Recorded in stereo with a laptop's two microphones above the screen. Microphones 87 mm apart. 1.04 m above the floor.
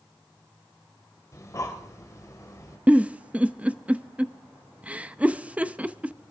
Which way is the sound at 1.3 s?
40° left (ahead or behind).